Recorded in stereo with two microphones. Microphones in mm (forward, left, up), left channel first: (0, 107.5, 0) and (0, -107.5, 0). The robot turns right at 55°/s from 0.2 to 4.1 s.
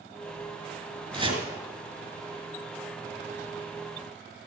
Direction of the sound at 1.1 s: 25° right (ahead or behind).